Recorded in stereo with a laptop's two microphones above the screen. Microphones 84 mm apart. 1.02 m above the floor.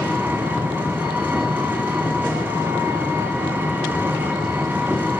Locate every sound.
0.0 s an engine running: 20° right (ahead or behind), 2.5 m